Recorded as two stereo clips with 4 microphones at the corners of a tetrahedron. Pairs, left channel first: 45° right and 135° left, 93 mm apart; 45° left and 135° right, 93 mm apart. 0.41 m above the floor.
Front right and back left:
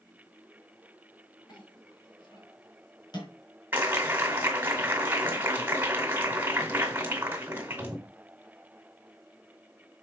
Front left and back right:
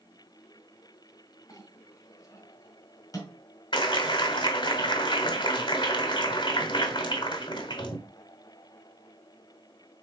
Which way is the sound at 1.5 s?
5° right.